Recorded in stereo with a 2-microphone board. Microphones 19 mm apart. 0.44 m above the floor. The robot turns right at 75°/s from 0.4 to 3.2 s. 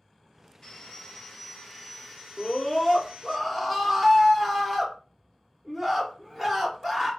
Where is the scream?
20° left (ahead or behind), 0.9 m; by 7.1 s 10° right (ahead or behind), 0.9 m.